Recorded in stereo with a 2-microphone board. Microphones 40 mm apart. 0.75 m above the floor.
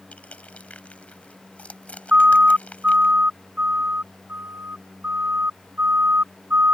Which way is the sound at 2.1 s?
30° right (ahead or behind).